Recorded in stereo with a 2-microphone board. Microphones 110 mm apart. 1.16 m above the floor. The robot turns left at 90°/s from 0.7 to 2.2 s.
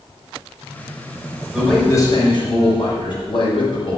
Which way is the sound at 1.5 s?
170° right.